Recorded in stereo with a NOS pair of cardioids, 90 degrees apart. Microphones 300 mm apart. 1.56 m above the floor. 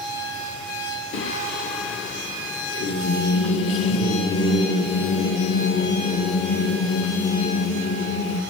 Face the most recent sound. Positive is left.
turn(degrees=40)